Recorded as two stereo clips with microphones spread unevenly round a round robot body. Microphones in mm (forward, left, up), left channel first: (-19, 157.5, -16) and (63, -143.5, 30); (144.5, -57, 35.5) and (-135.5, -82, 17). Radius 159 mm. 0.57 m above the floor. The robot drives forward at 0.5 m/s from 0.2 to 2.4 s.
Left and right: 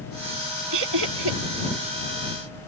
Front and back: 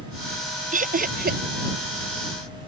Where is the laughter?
115° right; by 1.4 s 120° right.